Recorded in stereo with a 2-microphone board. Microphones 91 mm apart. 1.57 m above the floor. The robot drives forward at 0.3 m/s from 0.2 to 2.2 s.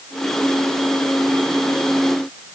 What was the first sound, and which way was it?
Only background noise.